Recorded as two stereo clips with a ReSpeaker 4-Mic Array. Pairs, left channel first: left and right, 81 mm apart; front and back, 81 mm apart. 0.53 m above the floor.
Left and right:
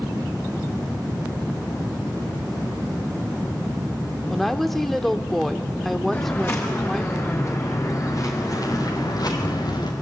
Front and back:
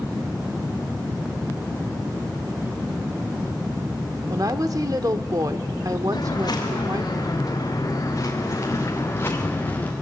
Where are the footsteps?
30° left, 5.5 m; by 9.9 s 65° left, 3.5 m.